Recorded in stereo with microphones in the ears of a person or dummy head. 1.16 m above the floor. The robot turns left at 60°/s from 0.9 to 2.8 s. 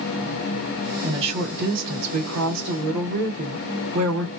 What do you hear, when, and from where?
1.0 s a woman speaking: 20° right, 1.5 m; by 4.3 s 125° right, 1.5 m